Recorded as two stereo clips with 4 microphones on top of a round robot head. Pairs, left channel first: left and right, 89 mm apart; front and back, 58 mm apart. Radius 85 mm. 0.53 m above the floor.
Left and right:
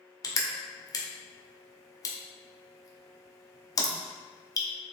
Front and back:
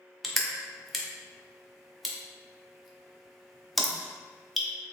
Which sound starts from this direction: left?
Crushing, at 0.2 s.